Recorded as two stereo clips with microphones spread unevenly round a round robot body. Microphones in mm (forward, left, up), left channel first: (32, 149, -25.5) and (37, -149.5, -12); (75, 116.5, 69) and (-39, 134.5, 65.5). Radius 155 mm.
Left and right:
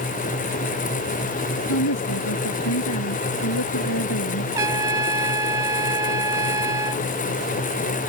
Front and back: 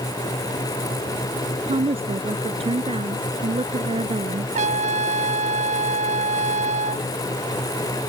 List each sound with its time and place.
1.7 s a woman speaking: 135° left
4.5 s a trumpet: 170° right